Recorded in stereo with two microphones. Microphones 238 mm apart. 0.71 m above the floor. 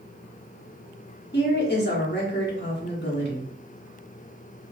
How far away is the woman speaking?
About 1.2 m.